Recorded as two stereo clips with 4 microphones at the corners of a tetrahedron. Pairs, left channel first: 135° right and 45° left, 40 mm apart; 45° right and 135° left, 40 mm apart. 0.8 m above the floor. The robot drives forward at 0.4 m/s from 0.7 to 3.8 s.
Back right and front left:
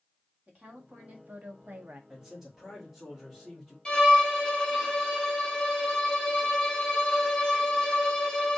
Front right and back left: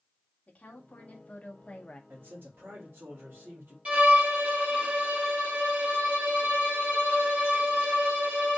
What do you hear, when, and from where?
0.5 s a woman speaking: 5° left, 1.6 m
2.1 s a man speaking: 115° left, 1.7 m; by 3.8 s 135° left, 2 m
3.9 s a violin: 170° left, 1.2 m